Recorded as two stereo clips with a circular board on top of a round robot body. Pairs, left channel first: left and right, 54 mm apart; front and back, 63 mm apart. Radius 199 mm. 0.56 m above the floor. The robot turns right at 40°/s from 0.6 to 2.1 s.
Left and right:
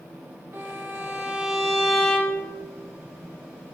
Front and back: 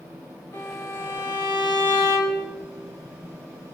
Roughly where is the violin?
Ahead right.